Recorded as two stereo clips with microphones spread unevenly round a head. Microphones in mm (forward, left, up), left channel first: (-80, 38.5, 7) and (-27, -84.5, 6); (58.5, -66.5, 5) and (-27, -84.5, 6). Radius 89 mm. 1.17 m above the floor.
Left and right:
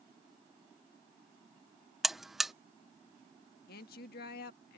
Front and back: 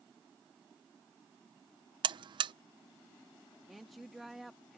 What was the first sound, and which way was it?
A buzzer, 155° right.